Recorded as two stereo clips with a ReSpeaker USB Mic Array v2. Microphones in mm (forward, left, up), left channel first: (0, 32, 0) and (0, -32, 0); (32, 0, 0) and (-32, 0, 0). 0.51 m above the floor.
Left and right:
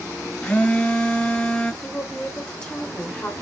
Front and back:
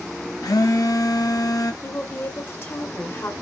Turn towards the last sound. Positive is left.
turn(degrees=20)